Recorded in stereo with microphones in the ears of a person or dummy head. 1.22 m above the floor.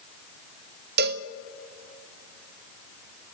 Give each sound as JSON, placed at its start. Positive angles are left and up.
{"t": 1.0, "sound": "a cowbell", "side_deg": -55, "distance_m": 0.7}